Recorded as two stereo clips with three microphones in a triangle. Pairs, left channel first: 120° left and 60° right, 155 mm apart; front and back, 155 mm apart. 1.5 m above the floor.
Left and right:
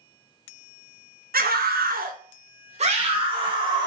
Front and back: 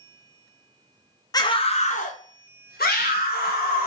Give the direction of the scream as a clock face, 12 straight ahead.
2 o'clock.